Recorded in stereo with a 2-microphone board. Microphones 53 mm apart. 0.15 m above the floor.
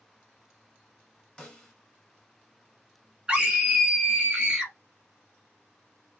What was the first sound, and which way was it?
A snare drum, 10° left (ahead or behind).